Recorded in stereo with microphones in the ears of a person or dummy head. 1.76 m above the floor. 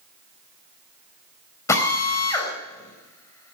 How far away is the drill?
About 4 m.